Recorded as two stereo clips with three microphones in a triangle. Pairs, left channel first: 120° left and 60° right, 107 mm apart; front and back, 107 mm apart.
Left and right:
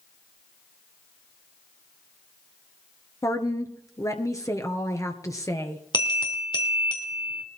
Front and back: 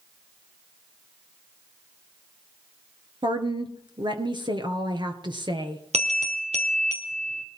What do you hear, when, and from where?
3.2 s a woman speaking: 165° left, 1.9 m
5.9 s a bell: 165° left, 2.5 m